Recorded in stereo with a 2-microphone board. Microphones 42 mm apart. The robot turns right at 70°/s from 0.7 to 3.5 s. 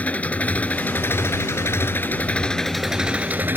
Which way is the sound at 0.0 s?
35° left.